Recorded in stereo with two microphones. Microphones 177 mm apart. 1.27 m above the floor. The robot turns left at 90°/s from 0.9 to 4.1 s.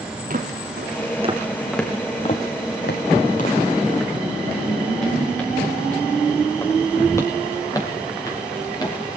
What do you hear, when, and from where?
0.3 s footsteps: 50° right (ahead or behind), 3 m; by 9.2 s 25° left (ahead or behind), 6.5 m